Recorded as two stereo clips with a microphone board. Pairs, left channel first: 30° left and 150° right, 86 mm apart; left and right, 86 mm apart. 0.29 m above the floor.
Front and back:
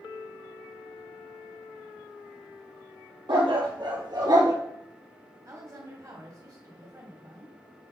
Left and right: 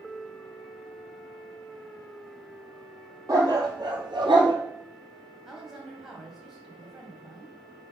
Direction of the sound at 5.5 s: 175° right.